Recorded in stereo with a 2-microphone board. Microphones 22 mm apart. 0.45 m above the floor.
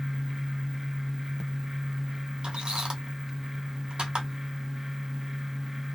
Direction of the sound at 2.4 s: 50° right (ahead or behind).